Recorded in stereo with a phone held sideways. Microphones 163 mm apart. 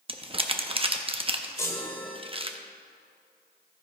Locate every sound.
0.1 s crumpling: 35° right (ahead or behind), 0.7 m
1.6 s a chime: 15° left (ahead or behind), 1.3 m